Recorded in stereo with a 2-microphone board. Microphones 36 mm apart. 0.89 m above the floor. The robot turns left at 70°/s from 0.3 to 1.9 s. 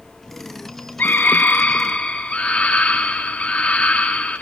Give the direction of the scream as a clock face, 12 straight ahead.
9 o'clock.